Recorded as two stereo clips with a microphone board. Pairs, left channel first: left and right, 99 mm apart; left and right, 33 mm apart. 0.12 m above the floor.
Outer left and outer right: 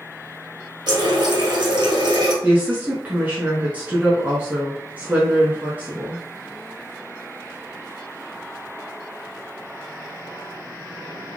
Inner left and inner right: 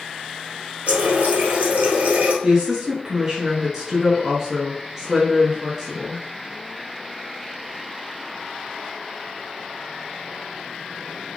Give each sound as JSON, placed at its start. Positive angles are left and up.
{"t": 0.9, "sound": "a running tap", "side_deg": -50, "distance_m": 1.4}
{"t": 2.4, "sound": "a woman speaking", "side_deg": -15, "distance_m": 1.1}